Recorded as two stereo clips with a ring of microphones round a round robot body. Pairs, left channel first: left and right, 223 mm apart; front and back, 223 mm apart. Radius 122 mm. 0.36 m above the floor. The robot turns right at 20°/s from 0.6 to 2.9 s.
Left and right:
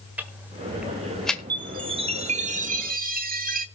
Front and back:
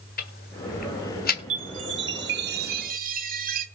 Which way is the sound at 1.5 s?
160° right.